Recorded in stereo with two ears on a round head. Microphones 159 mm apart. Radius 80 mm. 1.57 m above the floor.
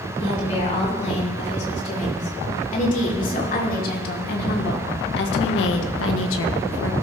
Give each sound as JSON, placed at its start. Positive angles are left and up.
{"t": 0.2, "sound": "a woman speaking", "side_deg": 40, "distance_m": 5.5}